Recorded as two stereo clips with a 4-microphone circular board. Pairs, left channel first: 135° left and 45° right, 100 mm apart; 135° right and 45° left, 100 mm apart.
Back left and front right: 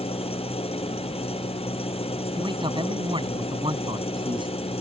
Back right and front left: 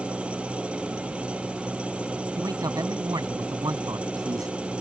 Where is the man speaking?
10° right.